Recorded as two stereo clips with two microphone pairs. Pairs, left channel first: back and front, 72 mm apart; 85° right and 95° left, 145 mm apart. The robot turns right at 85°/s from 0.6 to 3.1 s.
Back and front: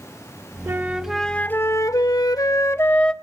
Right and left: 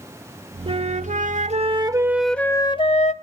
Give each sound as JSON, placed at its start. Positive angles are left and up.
{"t": 0.7, "sound": "a flute", "azimuth_deg": 50, "distance_m": 0.6}